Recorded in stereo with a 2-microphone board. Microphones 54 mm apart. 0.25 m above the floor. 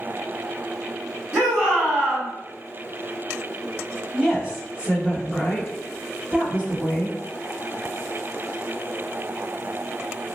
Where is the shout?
35° right (ahead or behind), 1.9 m.